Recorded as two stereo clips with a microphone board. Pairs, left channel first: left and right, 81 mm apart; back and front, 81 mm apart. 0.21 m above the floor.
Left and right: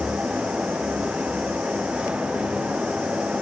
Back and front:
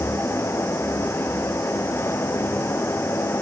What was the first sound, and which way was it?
Only background noise.